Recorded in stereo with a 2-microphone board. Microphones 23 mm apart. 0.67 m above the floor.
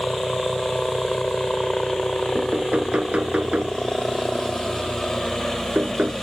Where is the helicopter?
40° left (ahead or behind); by 6.2 s 25° left (ahead or behind).